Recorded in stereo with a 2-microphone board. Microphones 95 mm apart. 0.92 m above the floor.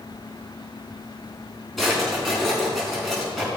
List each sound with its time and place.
1.8 s a drawer: centre (ahead or behind), 4.5 m